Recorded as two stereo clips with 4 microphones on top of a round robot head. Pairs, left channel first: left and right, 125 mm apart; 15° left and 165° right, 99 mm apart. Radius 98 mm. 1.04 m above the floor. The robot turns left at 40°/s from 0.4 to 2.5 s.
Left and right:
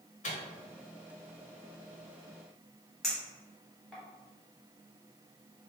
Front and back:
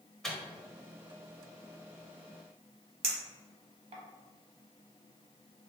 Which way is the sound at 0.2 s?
95° left.